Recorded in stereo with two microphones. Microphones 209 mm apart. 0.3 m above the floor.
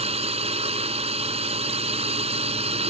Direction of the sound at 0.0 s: 30° right (ahead or behind).